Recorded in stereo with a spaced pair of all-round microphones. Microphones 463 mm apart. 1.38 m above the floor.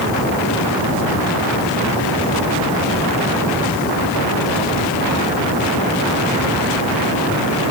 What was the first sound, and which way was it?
Only background noise.